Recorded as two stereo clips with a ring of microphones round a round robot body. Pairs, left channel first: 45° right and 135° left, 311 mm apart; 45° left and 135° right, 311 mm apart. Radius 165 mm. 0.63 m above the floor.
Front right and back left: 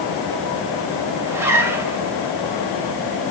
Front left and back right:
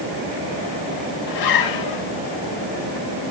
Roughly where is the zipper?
Ahead left.